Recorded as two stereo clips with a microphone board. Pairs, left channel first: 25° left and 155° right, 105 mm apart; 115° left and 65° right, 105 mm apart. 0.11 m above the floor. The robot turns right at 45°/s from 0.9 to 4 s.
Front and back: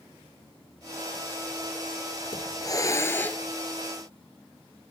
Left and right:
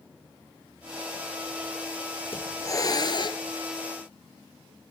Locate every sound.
2.3 s a hiss: 50° left, 1.4 m; by 3.4 s 100° left, 1.4 m